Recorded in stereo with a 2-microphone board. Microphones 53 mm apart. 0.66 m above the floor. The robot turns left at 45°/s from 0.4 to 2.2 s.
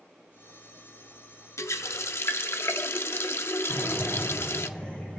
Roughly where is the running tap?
Left.